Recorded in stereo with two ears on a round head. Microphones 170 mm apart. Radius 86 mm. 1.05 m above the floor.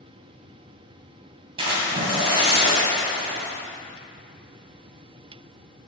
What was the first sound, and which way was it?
A splash, 30° right (ahead or behind).